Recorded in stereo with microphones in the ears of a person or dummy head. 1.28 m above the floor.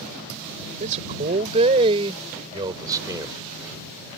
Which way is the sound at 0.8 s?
45° right (ahead or behind).